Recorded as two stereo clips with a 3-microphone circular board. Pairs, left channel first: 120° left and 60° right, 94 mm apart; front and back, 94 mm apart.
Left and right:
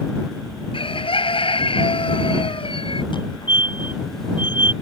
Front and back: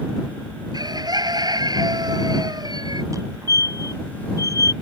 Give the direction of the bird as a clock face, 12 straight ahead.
7 o'clock.